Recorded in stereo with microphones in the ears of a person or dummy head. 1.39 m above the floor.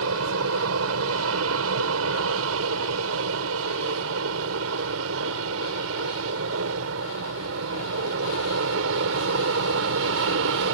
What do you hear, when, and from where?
0.0 s an aircraft: 75° right (ahead or behind); by 10.7 s 70° right (ahead or behind)